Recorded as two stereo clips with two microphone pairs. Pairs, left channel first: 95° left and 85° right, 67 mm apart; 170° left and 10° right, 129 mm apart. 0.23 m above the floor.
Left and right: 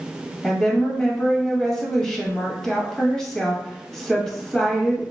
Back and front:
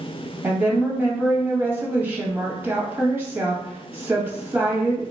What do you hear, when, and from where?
0.4 s a woman speaking: 30° left, 1.0 m